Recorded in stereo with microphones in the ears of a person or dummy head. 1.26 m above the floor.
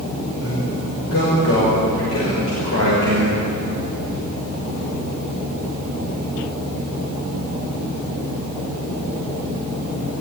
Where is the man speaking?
70° left (ahead or behind), 6 m.